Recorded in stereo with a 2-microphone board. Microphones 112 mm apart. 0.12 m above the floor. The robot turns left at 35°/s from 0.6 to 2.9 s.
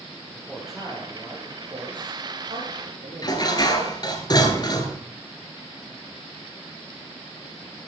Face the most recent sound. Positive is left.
turn(degrees=35)  # may be behind; listen again after turning